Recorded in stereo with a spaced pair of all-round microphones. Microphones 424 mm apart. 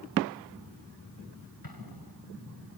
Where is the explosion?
55° left (ahead or behind).